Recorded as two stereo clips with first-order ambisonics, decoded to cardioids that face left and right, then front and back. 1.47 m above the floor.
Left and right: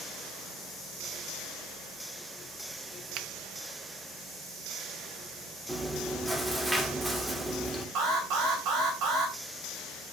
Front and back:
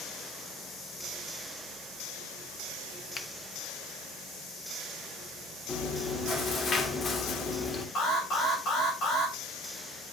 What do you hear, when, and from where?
3.1 s a finger snap: 60° right, 0.9 m
5.7 s chewing: 10° right, 1.1 m
8.0 s an alarm: 50° right, 3.5 m